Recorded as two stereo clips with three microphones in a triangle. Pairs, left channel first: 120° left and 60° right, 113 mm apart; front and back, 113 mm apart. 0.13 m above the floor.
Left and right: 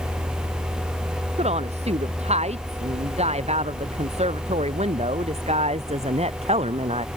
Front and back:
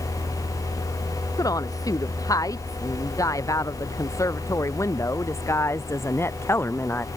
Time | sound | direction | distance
1.4 | a woman speaking | 55° right | ?